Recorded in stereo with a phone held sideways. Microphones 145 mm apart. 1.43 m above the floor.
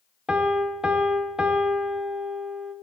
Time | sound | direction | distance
0.3 | a piano | 5° right (ahead or behind) | 0.6 m